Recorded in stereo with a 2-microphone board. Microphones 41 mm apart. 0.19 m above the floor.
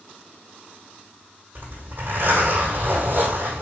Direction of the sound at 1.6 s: 65° right (ahead or behind).